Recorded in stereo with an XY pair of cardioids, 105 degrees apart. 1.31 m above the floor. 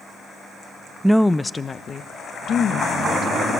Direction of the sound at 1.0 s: 10° right.